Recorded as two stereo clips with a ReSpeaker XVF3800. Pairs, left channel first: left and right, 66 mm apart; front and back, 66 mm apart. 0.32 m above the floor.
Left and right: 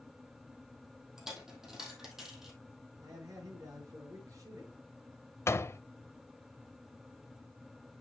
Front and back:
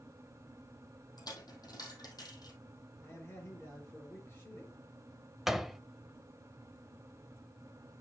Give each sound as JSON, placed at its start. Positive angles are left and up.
{"t": 1.2, "sound": "a dropped coin", "azimuth_deg": -5, "distance_m": 2.5}
{"t": 3.0, "sound": "a man speaking", "azimuth_deg": -55, "distance_m": 6.5}
{"t": 5.5, "sound": "a door slam", "azimuth_deg": 95, "distance_m": 0.7}